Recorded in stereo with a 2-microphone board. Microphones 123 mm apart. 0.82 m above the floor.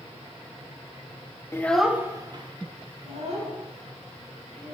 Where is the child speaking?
25° left (ahead or behind), 0.6 m; by 4.8 s 70° right (ahead or behind), 3 m.